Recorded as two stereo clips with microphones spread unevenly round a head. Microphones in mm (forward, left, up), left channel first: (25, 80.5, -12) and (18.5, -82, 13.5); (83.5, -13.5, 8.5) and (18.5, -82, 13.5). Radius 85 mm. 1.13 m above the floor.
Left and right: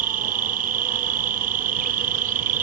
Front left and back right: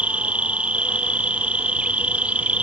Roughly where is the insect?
Ahead right.